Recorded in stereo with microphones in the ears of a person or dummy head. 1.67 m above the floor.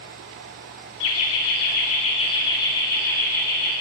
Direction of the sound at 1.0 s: 65° left (ahead or behind).